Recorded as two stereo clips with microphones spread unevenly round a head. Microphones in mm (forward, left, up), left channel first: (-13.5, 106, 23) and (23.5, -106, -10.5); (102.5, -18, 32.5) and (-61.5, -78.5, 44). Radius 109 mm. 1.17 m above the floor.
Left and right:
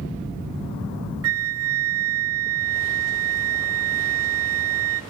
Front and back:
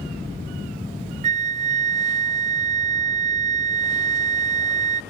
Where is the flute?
105° right, 0.5 m.